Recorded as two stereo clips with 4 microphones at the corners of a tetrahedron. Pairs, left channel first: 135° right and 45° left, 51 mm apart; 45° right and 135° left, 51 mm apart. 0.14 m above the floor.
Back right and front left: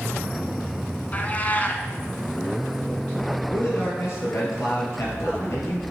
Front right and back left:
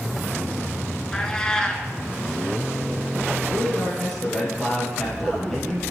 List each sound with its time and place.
1.1 s a cat meowing: 110° right, 0.9 m
3.5 s a man speaking: 130° right, 3.5 m